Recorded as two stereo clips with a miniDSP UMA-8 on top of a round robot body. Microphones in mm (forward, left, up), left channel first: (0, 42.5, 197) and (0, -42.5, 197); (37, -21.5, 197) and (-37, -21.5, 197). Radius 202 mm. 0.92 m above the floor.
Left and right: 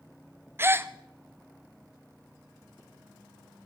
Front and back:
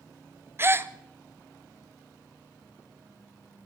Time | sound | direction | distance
0.6 | a gasp | 140° right | 1.0 m